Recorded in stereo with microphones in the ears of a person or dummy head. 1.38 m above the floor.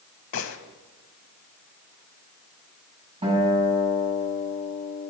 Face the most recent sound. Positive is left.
turn(degrees=-30)  # may be behind; listen again after turning